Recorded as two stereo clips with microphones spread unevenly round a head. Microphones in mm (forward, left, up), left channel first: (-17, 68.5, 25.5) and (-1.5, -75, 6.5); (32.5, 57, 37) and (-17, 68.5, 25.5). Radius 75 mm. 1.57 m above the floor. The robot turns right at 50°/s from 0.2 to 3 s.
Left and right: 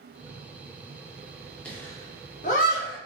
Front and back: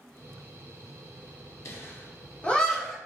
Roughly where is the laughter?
Ahead.